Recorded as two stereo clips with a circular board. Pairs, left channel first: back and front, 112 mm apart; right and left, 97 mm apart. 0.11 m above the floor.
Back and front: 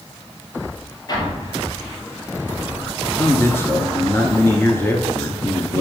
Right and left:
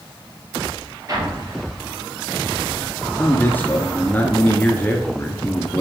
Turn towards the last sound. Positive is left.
turn(degrees=-140)